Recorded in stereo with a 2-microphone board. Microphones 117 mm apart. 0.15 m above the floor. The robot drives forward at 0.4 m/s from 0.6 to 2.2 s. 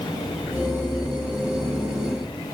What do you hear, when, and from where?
Only background noise.